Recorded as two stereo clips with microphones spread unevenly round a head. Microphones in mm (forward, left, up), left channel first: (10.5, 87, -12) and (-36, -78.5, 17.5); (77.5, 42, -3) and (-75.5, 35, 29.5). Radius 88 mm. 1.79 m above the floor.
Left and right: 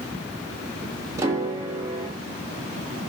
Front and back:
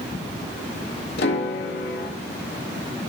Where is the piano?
35° right, 2.5 m.